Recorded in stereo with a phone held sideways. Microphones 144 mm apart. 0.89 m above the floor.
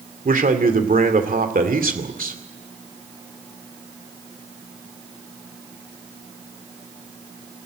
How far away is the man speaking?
About 2.5 m.